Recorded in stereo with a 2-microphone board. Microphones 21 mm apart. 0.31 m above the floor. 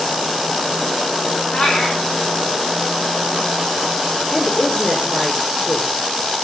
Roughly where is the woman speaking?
Left.